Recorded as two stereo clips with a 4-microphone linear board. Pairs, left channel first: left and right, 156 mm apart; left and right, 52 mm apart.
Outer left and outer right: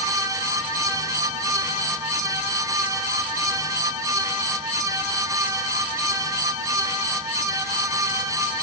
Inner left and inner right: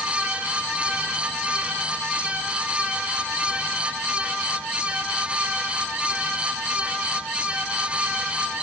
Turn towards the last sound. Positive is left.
No sound to turn to.